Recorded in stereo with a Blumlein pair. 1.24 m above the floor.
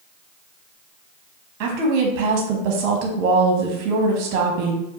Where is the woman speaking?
40° right, 0.9 m.